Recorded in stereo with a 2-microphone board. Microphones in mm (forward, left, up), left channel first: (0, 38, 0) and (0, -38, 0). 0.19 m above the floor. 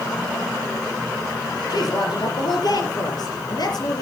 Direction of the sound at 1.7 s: 60° left (ahead or behind).